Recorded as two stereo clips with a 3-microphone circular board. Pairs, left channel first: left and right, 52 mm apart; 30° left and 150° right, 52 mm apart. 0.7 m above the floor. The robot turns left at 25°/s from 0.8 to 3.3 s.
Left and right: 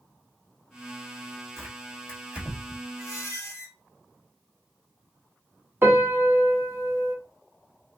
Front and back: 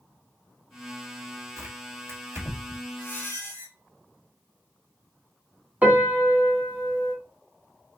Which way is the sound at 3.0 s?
80° left.